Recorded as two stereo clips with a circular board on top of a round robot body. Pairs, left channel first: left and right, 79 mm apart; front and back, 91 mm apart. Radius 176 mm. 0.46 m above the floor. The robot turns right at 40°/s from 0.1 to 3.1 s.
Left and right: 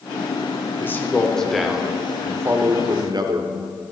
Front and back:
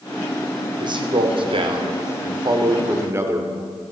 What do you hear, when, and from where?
0.8 s a man speaking: 150° left, 1.8 m; by 3.9 s 120° right, 1.8 m